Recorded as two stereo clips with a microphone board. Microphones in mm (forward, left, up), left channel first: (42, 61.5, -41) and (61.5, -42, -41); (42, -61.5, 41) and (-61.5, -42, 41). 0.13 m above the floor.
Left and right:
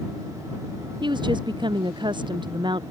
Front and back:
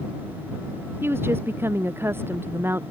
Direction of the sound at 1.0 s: 125° right.